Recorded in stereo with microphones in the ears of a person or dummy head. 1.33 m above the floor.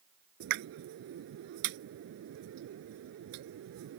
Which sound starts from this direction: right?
A pop, at 0.4 s.